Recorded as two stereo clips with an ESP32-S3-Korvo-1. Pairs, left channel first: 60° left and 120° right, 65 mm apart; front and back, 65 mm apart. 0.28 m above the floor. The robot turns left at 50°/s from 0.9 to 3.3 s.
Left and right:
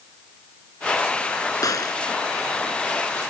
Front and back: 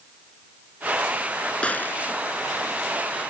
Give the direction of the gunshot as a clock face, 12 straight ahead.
10 o'clock.